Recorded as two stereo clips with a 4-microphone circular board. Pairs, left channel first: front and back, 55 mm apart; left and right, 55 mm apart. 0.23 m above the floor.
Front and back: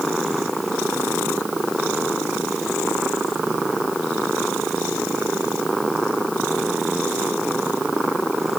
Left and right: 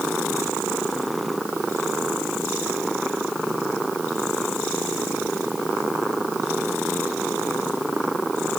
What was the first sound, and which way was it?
Only background noise.